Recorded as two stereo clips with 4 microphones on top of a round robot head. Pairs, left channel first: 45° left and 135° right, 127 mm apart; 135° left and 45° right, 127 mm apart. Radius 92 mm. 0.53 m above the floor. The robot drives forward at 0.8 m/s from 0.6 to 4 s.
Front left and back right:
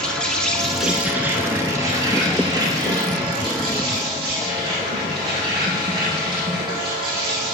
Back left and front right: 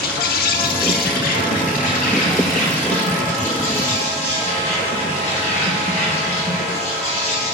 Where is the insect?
130° left, 0.9 m; by 7.5 s 170° left, 3.5 m.